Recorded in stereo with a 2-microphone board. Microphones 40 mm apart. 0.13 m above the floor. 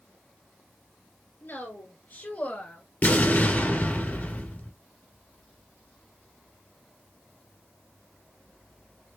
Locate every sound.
1.4 s a woman speaking: 55° left (ahead or behind), 2 m; by 2.8 s 40° left (ahead or behind), 1.6 m
3.0 s an explosion: 50° left (ahead or behind), 2 m